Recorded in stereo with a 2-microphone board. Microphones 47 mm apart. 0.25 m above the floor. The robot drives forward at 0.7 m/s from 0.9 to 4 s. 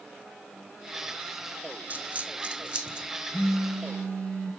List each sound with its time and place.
1.9 s a dropped coin: 30° right (ahead or behind), 1.4 m; by 3.1 s 20° right (ahead or behind), 2 m
3.3 s a phone buzzing: 35° left (ahead or behind), 2.0 m; by 4.5 s 30° left (ahead or behind), 2.5 m